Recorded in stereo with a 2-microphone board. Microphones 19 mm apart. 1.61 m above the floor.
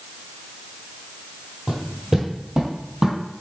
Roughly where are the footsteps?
Centre.